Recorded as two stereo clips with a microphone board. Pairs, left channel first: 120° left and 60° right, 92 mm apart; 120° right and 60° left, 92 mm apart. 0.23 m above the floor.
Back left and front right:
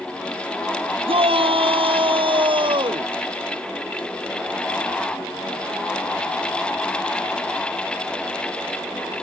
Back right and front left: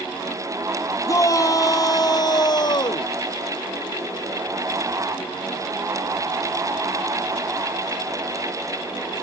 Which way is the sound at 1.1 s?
70° right.